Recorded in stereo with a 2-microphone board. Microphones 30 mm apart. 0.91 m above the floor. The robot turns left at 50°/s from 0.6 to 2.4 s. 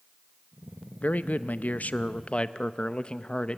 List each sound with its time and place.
1.0 s a man speaking: 110° left, 0.6 m; by 3.6 s 40° left, 0.6 m